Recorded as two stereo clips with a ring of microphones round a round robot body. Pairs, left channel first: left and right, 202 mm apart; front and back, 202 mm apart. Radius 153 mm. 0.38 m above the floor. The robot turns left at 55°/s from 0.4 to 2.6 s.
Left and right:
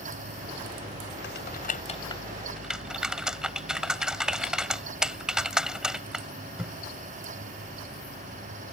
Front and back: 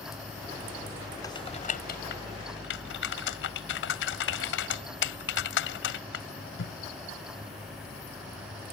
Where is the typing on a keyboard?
70° left; by 6.7 s 5° right.